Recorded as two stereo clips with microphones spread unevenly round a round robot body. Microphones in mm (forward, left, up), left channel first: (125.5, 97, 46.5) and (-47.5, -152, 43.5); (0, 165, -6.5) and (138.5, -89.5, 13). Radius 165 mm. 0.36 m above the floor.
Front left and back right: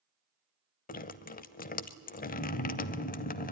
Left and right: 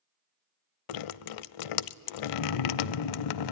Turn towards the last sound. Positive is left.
turn(degrees=120)